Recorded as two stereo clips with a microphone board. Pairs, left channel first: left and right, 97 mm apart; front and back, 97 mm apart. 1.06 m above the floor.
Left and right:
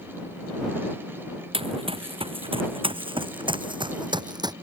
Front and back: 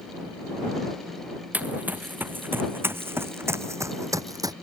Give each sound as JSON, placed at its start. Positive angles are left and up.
{"t": 1.5, "sound": "running footsteps", "azimuth_deg": -105}